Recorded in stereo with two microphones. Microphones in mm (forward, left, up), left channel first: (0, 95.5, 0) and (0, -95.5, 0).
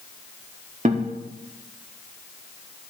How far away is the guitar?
About 0.9 m.